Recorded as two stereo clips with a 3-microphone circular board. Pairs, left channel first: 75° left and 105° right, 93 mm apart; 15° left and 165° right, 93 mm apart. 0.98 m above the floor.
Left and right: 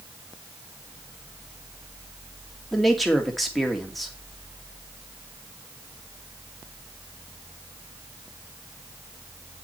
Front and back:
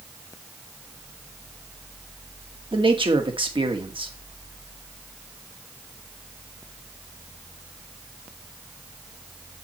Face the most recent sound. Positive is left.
turn(degrees=165)